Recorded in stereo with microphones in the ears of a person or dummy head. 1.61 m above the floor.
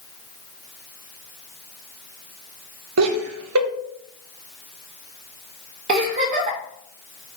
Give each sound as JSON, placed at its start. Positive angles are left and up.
{"t": 3.0, "sound": "laughter", "side_deg": -85, "distance_m": 1.0}
{"t": 5.9, "sound": "a giggle", "side_deg": -40, "distance_m": 1.3}